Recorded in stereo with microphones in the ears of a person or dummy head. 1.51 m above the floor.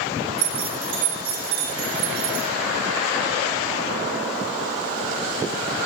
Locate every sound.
0.4 s keys jangling: 80° right, 2.5 m